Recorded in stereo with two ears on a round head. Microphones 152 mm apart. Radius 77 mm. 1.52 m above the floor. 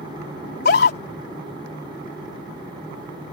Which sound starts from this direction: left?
A scream, at 0.4 s.